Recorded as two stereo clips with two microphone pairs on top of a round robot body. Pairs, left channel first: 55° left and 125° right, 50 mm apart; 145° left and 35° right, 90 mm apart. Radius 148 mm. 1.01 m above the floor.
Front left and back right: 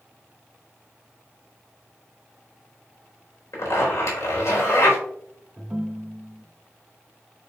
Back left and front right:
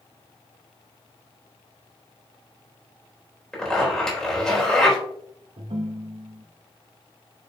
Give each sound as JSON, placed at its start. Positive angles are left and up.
{"t": 3.5, "sound": "a zipper", "azimuth_deg": 60, "distance_m": 4.0}
{"t": 5.6, "sound": "a ringtone", "azimuth_deg": -55, "distance_m": 0.7}